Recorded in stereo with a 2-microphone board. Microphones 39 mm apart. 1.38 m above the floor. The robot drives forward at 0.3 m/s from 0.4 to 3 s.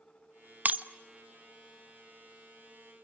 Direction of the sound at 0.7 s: 45° right (ahead or behind).